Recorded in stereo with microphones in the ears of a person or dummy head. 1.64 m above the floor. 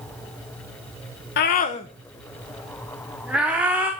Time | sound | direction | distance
1.4 | a scream | 55° left (ahead or behind) | 0.8 m